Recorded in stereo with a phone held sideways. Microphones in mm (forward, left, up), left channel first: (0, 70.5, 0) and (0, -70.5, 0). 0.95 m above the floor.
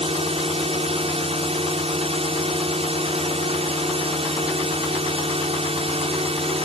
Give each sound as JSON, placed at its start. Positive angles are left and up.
{"t": 0.0, "sound": "a drone", "side_deg": -45}